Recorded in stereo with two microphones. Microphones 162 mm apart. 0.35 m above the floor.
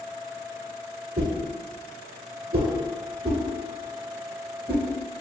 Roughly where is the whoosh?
Right.